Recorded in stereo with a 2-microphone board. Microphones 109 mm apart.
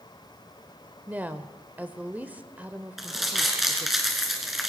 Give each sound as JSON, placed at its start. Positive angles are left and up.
{"t": 1.1, "sound": "a woman speaking", "side_deg": -15, "distance_m": 0.8}
{"t": 3.0, "sound": "crumpling", "side_deg": 0, "distance_m": 3.0}